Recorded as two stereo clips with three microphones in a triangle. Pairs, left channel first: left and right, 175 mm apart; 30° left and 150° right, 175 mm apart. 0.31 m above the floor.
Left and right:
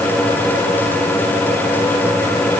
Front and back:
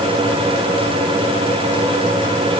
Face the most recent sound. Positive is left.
No sound to turn to.